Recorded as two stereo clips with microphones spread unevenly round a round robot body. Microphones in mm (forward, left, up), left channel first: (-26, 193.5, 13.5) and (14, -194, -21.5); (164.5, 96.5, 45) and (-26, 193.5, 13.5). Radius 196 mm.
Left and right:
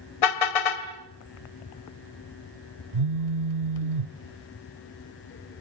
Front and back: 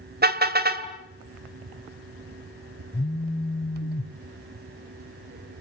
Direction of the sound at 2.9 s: 80° right.